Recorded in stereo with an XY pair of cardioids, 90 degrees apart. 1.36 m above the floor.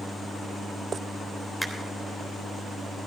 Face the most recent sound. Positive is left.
turn(degrees=-5)